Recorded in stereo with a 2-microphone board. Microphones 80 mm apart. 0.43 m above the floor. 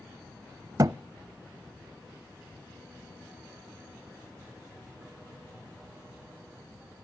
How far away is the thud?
About 0.5 m.